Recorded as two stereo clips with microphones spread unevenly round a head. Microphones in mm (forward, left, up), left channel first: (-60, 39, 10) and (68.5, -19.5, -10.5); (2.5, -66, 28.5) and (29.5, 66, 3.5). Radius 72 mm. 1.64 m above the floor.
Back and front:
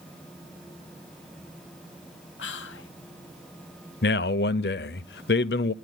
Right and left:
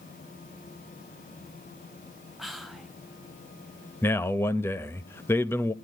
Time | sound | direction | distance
2.4 | whispering | 170° left | 1.3 m
4.0 | a man speaking | straight behind | 0.7 m